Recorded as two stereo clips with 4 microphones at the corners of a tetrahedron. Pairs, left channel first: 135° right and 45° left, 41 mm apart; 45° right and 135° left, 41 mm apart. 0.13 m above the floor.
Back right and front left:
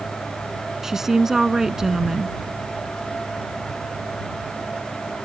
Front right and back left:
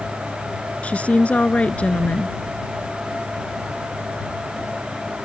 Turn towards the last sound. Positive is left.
turn(degrees=-25)